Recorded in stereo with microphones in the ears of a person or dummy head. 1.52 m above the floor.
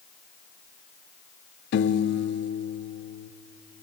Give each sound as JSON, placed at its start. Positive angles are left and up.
{"t": 1.7, "sound": "a piano", "side_deg": 55, "distance_m": 0.6}